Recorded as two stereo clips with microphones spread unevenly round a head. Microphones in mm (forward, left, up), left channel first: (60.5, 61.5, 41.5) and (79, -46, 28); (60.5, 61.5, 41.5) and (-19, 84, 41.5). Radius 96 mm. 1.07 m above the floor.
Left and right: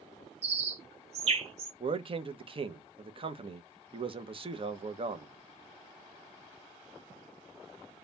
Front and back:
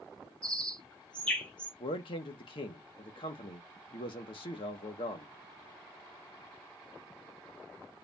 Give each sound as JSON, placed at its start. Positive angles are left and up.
{"t": 0.4, "sound": "a bird", "azimuth_deg": -95, "distance_m": 1.3}
{"t": 1.8, "sound": "a man speaking", "azimuth_deg": -45, "distance_m": 1.0}